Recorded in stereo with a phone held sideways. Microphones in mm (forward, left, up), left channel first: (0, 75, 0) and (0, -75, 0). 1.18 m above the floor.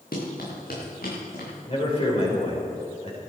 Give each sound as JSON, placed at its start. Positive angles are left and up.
{"t": 0.1, "sound": "running footsteps", "side_deg": 75, "distance_m": 6.0}
{"t": 1.7, "sound": "a man speaking", "side_deg": 40, "distance_m": 5.0}